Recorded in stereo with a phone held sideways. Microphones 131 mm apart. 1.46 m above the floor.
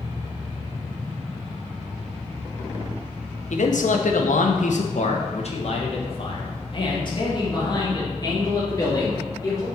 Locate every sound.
3.5 s a man speaking: 65° left (ahead or behind), 0.8 m; by 9.7 s 25° left (ahead or behind), 3 m